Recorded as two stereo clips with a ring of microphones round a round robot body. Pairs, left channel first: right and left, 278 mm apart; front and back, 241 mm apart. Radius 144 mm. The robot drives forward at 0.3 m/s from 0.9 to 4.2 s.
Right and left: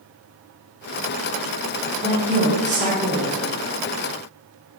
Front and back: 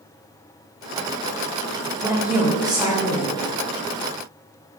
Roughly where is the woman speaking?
Left.